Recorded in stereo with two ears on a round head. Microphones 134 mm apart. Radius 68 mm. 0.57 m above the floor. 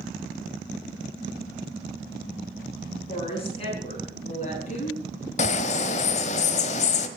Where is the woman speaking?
40° left (ahead or behind), 7 m; by 5.0 s 50° left (ahead or behind), 6.5 m.